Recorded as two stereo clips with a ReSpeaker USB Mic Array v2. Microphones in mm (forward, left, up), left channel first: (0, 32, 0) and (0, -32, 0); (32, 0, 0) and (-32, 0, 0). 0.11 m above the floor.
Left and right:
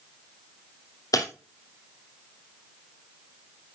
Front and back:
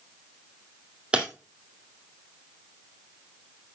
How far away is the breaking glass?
About 2.5 m.